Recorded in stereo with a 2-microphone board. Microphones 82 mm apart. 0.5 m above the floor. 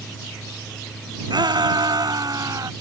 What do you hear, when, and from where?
1.3 s a shout: 65° right (ahead or behind); by 2.7 s 45° right (ahead or behind)